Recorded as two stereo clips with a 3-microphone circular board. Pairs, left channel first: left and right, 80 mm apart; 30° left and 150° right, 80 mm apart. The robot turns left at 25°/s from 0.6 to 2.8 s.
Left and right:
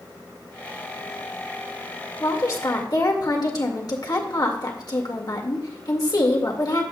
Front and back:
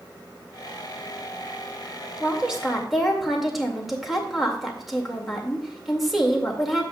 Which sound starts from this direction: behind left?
A woman speaking, at 2.2 s.